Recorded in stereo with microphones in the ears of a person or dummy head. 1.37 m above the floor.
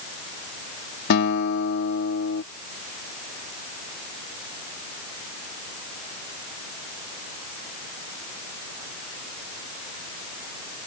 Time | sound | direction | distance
1.1 | a guitar | 70° left (ahead or behind) | ?